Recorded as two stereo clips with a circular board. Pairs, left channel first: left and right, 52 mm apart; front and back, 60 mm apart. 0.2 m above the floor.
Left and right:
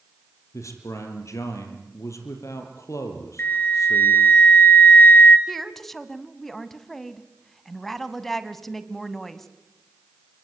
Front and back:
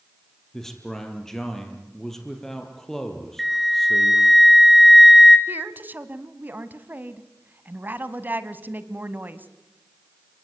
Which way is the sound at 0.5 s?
85° left.